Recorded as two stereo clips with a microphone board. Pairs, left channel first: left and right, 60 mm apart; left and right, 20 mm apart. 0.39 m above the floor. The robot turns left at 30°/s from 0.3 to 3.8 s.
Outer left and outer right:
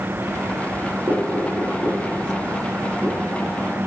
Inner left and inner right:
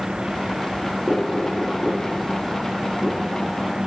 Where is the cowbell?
I don't hear a cowbell.